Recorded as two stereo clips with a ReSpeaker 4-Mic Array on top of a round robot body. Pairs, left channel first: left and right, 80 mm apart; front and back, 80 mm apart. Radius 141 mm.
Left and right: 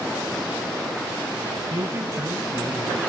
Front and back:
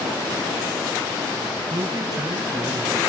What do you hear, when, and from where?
1.7 s a man speaking: 140° right, 7.5 m